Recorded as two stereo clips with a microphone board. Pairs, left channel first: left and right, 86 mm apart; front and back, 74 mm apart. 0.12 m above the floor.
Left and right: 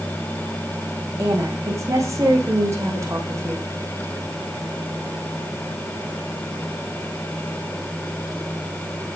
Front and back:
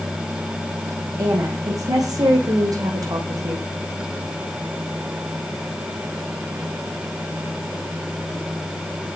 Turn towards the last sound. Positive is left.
turn(degrees=-145)